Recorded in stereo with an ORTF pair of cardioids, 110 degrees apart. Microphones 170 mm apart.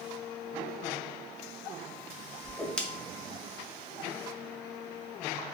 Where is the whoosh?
5° left, 0.6 m.